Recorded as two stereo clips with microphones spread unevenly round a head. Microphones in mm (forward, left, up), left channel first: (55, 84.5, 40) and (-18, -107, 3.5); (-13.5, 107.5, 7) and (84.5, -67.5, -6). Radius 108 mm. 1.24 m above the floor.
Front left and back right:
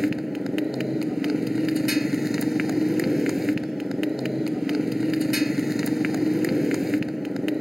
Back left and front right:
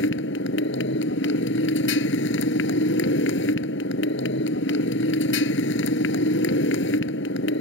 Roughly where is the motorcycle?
Behind.